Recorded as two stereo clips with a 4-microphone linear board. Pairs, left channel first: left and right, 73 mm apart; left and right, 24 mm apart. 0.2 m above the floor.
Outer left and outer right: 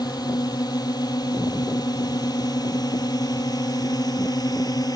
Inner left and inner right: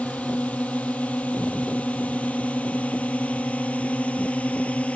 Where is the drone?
65° left (ahead or behind); by 5.0 s 60° left (ahead or behind).